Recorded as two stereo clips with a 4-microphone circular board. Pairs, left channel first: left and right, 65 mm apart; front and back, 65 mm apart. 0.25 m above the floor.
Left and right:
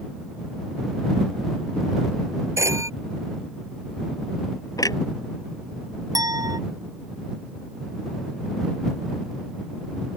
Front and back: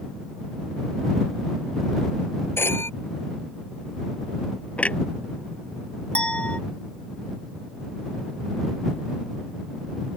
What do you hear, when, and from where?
2.6 s a phone ringing: 50° right
4.8 s a clunk: 70° left
6.2 s a clink: 75° right